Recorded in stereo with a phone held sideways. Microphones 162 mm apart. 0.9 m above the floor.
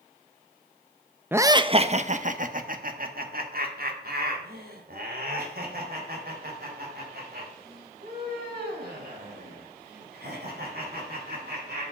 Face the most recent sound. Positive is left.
turn(degrees=-75)  # may be behind; listen again after turning